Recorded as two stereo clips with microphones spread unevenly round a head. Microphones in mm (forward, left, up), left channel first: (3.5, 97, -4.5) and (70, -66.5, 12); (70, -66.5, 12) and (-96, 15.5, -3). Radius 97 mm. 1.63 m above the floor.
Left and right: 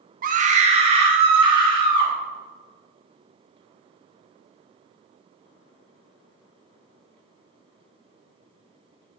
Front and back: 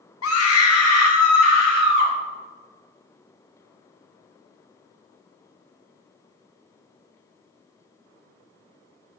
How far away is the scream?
About 0.8 m.